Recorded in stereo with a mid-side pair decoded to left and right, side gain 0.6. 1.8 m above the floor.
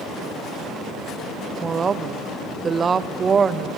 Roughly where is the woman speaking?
Ahead right.